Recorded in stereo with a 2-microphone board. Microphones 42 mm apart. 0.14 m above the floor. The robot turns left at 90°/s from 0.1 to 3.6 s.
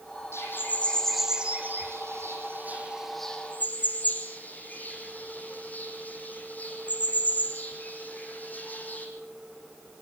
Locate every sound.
0.3 s a bird: 70° left (ahead or behind), 6 m; by 9.1 s 40° left (ahead or behind), 6 m